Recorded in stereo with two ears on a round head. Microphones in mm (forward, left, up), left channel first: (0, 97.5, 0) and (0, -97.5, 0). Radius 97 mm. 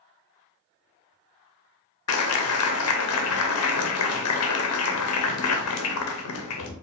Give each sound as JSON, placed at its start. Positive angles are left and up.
{"t": 2.1, "sound": "a clap", "side_deg": 80, "distance_m": 0.7}